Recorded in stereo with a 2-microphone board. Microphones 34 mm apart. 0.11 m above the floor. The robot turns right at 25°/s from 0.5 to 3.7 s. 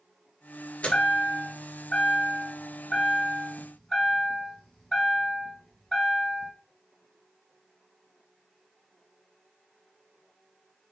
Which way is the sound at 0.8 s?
85° left.